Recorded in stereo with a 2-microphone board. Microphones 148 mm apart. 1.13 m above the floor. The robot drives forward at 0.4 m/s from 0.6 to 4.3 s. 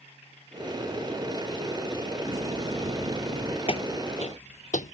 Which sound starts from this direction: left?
Footsteps, at 3.7 s.